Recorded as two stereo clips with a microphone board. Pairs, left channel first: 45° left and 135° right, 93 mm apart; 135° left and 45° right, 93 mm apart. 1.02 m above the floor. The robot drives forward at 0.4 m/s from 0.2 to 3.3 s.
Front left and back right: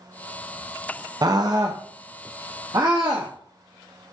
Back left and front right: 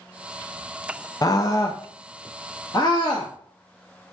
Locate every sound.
1.2 s a scream: 175° right, 0.5 m; by 4.1 s straight behind, 1.3 m